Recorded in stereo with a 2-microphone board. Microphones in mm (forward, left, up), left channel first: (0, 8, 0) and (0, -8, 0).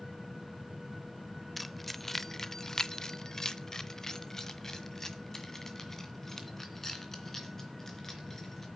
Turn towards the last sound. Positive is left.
turn(degrees=15)  # may be behind; listen again after turning